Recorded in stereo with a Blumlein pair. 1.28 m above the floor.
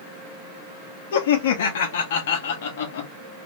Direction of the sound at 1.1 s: 55° left.